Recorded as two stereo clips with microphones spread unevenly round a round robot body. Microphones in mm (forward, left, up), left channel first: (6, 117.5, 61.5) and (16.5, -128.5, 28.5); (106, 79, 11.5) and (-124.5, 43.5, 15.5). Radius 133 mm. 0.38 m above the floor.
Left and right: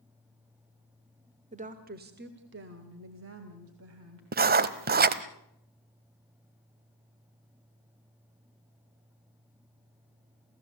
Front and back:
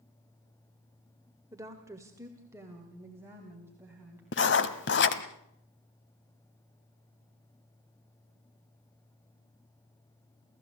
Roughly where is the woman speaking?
Right.